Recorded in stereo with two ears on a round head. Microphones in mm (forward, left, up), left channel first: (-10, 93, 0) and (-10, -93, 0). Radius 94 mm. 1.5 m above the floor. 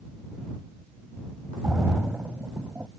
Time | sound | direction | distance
1.6 | a splash | 5° right (ahead or behind) | ?